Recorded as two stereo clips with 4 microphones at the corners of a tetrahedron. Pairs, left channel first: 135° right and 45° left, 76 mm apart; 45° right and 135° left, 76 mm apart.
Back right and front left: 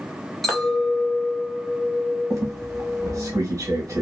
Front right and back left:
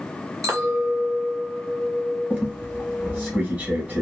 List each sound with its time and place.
0.4 s a clink: 140° left, 0.9 m
2.3 s a squeak: 75° left, 0.9 m